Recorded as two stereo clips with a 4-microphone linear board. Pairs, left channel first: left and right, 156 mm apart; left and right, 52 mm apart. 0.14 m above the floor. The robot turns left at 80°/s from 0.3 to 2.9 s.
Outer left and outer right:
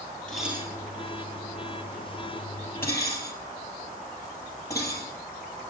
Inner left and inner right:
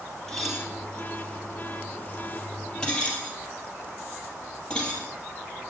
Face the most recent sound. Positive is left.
turn(degrees=20)  # may be behind; listen again after turning